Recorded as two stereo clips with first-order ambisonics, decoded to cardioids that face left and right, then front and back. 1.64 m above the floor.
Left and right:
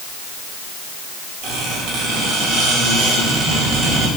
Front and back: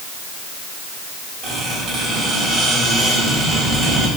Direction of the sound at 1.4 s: 110° right.